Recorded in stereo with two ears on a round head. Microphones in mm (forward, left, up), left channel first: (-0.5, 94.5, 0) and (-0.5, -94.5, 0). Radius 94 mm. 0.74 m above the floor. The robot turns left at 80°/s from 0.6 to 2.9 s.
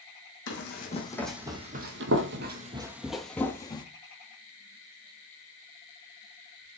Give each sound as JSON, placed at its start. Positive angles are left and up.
{"t": 0.5, "sound": "running footsteps", "side_deg": 60, "distance_m": 2.5}